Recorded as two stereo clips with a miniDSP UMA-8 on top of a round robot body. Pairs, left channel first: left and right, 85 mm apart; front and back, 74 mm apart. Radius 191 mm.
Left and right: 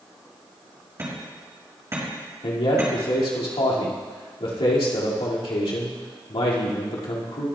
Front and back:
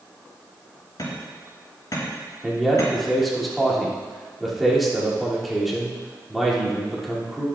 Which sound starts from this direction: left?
A man speaking, at 2.4 s.